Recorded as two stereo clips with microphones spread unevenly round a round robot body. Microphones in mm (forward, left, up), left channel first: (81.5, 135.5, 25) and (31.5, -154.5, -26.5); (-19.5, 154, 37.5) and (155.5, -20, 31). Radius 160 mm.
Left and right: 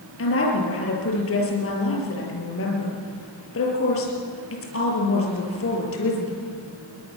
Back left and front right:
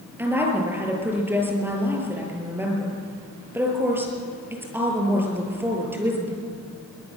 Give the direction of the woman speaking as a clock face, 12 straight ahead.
11 o'clock.